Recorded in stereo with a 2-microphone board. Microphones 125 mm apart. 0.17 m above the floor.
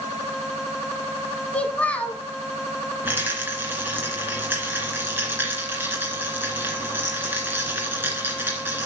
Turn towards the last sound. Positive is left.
turn(degrees=-15)  # may be behind; listen again after turning